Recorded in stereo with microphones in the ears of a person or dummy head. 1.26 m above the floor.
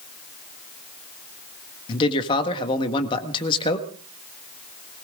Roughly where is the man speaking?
Left.